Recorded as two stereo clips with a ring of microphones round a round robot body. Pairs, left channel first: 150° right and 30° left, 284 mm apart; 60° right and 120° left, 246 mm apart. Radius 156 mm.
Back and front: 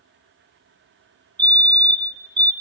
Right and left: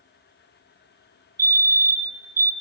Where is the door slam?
I don't hear a door slam.